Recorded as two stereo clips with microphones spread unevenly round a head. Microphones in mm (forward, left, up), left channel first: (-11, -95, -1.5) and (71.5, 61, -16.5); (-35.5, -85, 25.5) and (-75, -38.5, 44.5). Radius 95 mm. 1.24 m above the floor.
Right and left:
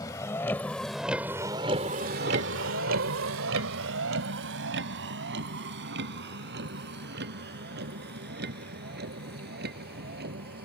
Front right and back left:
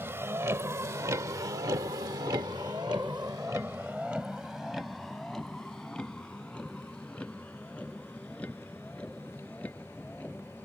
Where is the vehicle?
170° left; by 10.7 s 30° left.